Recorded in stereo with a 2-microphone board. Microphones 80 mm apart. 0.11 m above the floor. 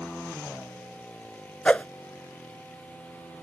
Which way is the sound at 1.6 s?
15° left (ahead or behind).